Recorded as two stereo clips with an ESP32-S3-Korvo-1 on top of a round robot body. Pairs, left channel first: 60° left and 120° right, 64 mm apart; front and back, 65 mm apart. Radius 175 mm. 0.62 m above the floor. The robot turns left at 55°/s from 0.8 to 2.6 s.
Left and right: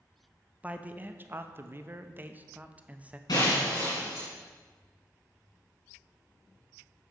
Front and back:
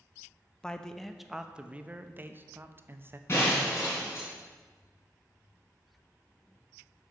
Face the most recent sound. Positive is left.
turn(degrees=55)